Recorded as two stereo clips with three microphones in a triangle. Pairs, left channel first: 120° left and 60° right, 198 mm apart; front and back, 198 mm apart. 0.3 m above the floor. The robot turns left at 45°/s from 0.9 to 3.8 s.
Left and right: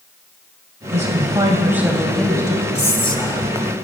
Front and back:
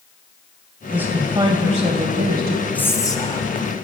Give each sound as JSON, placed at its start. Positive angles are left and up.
{"t": 0.9, "sound": "a woman speaking", "azimuth_deg": -100, "distance_m": 1.4}
{"t": 2.8, "sound": "whispering", "azimuth_deg": 80, "distance_m": 1.7}